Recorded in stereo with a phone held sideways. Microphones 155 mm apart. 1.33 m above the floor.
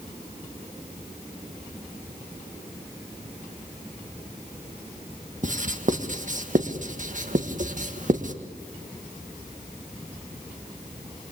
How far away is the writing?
About 1.6 m.